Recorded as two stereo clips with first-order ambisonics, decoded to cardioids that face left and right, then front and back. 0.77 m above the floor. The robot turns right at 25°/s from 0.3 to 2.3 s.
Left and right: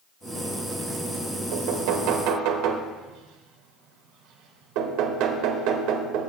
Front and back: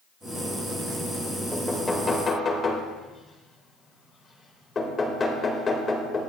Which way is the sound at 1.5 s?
90° right.